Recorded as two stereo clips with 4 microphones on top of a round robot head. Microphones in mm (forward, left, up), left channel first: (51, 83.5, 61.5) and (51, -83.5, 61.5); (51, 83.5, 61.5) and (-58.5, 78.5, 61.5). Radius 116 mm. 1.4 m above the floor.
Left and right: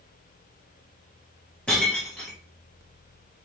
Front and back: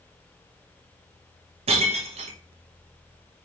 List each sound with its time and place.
1.7 s breaking glass: 175° left, 0.8 m